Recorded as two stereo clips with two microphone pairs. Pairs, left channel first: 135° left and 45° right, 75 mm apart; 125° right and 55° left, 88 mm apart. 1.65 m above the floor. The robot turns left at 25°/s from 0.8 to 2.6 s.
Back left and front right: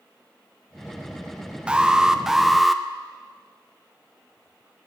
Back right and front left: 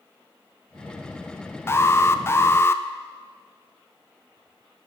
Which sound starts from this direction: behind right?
An alarm, at 1.7 s.